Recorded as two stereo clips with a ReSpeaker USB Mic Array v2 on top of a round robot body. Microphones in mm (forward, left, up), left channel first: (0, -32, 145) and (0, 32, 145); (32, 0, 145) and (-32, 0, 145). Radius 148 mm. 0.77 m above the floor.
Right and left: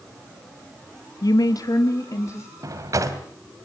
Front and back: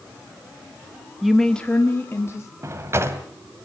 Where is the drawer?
130° left, 1.9 m.